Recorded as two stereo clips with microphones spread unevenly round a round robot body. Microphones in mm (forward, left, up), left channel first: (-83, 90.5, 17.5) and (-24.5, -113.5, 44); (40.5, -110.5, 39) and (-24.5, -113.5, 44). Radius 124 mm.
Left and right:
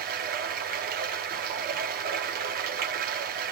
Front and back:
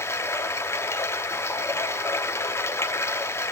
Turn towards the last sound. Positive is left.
turn(degrees=-30)